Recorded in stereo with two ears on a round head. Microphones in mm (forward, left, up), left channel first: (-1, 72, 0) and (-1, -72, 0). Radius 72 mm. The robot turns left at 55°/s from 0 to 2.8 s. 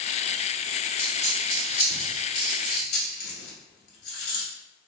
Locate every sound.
1.0 s a dropped coin: 5° left (ahead or behind), 1.5 m; by 4.5 s 65° left (ahead or behind), 1.5 m